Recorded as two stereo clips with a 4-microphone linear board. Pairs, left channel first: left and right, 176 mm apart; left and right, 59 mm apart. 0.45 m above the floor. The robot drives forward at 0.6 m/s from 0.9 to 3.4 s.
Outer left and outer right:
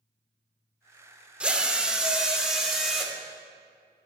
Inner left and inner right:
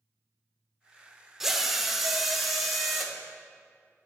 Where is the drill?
5° right (ahead or behind), 0.6 m.